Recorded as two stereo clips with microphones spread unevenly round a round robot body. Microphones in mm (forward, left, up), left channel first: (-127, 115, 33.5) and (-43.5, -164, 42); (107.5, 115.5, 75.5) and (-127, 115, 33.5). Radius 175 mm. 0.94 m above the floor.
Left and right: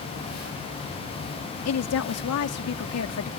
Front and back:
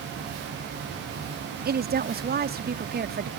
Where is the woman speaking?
135° left.